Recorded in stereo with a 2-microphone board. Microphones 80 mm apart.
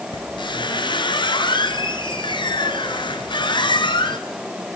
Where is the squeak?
80° left, 1.5 m.